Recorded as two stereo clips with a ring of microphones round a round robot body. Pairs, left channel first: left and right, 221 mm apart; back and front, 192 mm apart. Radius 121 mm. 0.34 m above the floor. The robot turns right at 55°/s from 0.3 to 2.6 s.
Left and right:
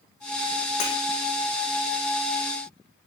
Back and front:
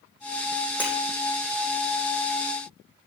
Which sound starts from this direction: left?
Breaking glass, at 0.8 s.